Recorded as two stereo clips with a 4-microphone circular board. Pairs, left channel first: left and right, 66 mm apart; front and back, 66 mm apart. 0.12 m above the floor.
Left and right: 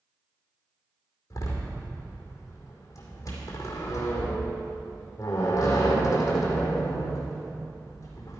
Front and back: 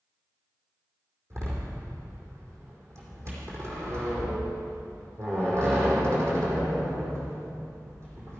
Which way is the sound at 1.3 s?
135° left.